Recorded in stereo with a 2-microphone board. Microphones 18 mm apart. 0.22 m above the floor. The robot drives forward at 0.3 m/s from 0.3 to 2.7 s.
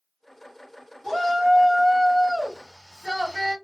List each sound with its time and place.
1.0 s a shout: 5° left (ahead or behind), 1.7 m